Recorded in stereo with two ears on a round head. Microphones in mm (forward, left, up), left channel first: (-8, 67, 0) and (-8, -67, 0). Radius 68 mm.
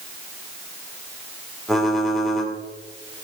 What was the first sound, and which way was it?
Typing on a keyboard, centre (ahead or behind).